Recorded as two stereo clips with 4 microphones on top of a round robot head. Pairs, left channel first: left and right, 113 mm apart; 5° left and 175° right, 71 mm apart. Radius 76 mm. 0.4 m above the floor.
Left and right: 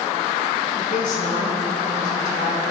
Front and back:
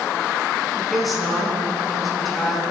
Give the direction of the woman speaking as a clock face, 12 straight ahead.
9 o'clock.